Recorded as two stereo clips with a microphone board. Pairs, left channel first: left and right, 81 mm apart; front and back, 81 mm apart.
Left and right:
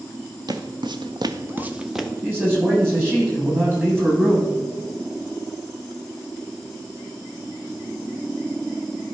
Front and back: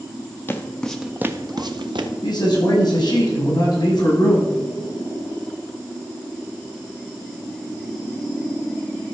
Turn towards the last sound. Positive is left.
turn(degrees=-25)